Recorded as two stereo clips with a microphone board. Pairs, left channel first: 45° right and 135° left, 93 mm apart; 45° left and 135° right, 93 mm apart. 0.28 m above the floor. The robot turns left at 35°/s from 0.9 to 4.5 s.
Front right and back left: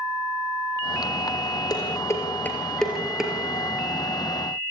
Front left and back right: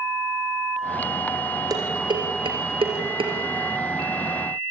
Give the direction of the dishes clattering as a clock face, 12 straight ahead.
3 o'clock.